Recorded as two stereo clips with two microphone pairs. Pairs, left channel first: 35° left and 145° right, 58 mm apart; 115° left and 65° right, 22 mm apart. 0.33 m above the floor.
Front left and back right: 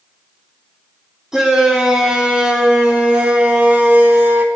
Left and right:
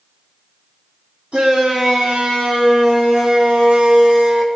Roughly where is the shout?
Ahead right.